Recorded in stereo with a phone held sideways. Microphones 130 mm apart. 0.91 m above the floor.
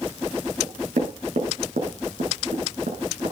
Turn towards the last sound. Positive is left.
turn(degrees=-90)